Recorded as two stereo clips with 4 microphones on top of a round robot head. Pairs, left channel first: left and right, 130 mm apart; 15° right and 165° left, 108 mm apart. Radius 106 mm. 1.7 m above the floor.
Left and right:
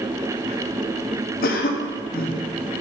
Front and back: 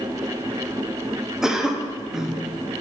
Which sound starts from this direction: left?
A cough, at 1.4 s.